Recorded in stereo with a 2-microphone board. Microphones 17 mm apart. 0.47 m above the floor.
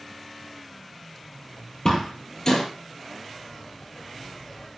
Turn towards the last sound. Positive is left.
turn(degrees=30)  # may be behind; listen again after turning